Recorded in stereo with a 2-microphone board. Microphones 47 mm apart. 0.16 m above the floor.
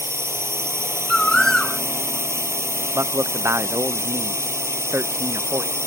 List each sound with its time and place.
0.0 s a drone: 70° right (ahead or behind)
1.1 s a bird: 10° left (ahead or behind)
2.9 s a man speaking: 70° right (ahead or behind)